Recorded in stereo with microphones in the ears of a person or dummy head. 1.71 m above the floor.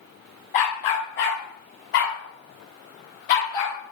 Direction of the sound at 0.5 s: 40° left (ahead or behind).